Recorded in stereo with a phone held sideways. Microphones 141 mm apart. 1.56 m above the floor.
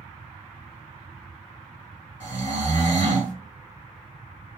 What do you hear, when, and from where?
2.2 s snoring: 55° right (ahead or behind), 2 m